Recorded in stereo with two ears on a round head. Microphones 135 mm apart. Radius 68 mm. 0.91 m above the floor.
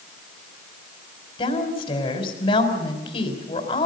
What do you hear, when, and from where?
1.4 s a woman speaking: 35° left (ahead or behind), 4 m